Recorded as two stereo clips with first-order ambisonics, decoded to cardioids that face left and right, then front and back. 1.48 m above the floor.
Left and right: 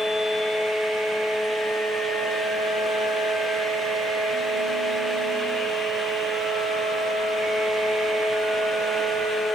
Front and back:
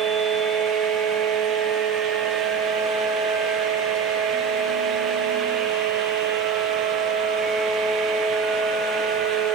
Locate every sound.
Only background noise.